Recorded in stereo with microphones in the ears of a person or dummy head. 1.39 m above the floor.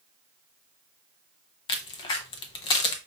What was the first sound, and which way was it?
A crack, 25° left (ahead or behind).